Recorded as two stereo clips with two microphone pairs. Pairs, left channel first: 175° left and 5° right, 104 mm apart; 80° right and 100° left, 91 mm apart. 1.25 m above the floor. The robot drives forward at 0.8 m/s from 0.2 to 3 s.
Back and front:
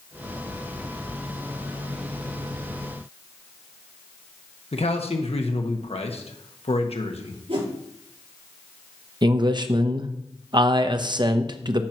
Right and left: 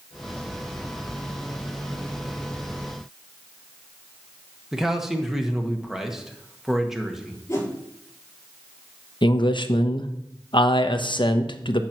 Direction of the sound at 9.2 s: 50° right.